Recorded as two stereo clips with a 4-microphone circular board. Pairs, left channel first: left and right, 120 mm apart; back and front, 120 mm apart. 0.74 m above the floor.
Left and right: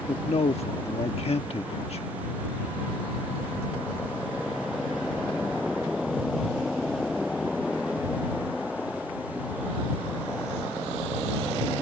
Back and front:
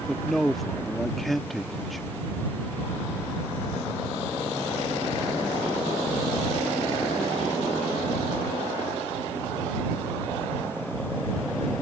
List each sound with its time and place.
0.1 s a man speaking: 90° left